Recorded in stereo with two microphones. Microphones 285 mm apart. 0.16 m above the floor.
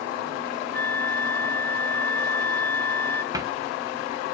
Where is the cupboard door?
15° right (ahead or behind), 1.2 m.